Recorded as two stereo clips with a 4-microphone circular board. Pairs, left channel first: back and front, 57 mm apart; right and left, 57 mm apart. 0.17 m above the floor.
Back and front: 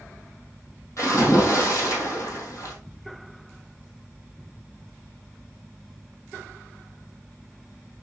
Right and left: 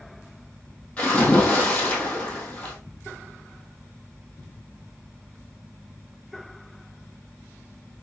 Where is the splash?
155° right, 3 m.